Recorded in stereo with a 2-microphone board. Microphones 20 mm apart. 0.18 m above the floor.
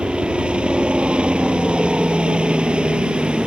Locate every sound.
0.0 s a helicopter: 60° right (ahead or behind)